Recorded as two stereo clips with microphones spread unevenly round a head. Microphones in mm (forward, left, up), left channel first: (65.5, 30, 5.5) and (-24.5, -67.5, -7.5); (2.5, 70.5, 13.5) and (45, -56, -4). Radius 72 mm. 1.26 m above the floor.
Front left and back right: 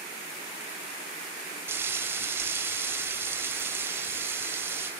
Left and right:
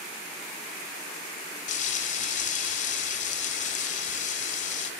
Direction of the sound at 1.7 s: 150° left.